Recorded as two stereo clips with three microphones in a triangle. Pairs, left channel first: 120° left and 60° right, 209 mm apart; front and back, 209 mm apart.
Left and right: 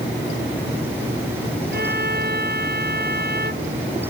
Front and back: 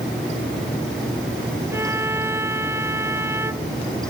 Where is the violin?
100° right.